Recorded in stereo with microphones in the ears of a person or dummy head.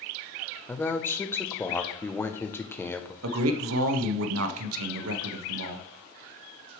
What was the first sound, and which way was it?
A man speaking, 10° left (ahead or behind).